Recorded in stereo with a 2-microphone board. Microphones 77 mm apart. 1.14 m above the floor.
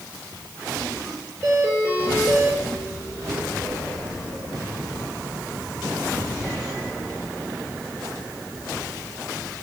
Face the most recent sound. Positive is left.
turn(degrees=-25)  # may be behind; listen again after turning